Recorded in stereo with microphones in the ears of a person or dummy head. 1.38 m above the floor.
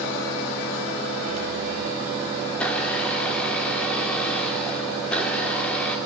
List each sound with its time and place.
2.5 s a blender: 5° left (ahead or behind), 2.5 m